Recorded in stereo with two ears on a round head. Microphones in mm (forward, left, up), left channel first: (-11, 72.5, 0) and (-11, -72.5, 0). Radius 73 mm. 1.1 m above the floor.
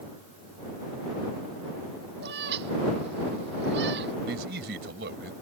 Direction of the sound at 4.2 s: 75° right (ahead or behind).